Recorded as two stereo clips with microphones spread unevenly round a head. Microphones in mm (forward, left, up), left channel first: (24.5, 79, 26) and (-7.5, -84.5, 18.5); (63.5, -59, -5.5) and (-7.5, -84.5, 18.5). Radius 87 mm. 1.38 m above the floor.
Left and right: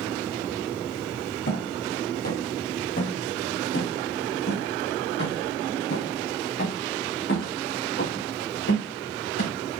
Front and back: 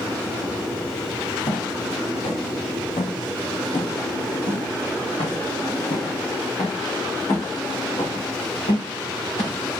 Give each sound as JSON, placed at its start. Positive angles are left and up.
{"t": 1.5, "sound": "footsteps", "azimuth_deg": 55, "distance_m": 2.0}